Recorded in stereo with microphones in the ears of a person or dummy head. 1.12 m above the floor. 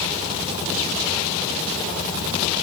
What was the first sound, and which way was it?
Only background noise.